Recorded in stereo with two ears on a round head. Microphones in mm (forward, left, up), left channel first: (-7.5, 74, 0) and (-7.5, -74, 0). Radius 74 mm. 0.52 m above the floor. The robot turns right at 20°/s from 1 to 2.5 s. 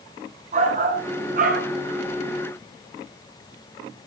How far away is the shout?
About 6.5 m.